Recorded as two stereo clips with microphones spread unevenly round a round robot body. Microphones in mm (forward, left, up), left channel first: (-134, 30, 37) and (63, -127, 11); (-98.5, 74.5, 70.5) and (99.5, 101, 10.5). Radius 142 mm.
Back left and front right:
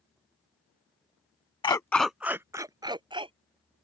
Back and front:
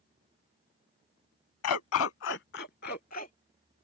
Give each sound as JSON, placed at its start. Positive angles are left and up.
{"t": 1.6, "sound": "a dog barking", "azimuth_deg": -145}